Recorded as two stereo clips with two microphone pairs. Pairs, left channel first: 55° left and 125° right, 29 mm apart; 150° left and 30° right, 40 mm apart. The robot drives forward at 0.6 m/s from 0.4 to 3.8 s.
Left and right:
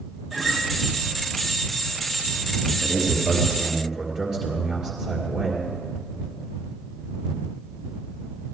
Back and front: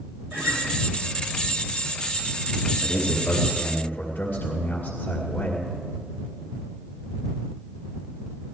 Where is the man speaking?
170° left, 2.0 m; by 5.7 s 175° left, 2.5 m.